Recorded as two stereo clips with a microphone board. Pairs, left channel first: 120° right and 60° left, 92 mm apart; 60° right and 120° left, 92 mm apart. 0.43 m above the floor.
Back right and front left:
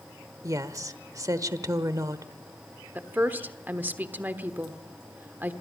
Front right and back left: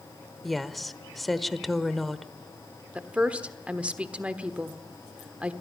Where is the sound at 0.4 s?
30° left, 1.0 m.